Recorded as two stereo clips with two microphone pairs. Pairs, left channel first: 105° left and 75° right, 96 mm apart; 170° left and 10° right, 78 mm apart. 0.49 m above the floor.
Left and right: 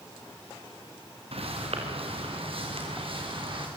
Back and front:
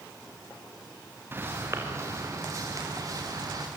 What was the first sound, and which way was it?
Footsteps, 70° right.